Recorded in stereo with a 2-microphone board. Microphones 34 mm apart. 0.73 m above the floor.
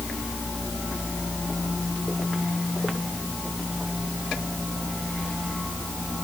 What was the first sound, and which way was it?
Only background noise.